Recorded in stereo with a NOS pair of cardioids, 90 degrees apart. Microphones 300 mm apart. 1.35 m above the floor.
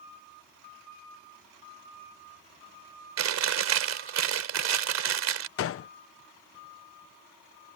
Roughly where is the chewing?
Ahead right.